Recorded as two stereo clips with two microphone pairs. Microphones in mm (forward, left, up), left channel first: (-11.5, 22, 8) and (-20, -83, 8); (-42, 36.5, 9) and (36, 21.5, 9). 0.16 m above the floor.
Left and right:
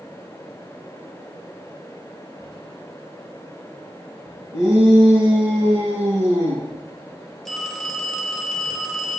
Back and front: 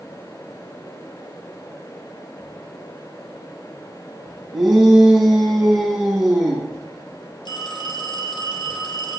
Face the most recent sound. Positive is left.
turn(degrees=175)